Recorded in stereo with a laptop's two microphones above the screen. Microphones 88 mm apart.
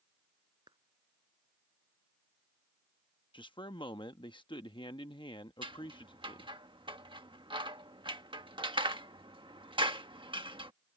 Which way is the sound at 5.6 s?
75° right (ahead or behind).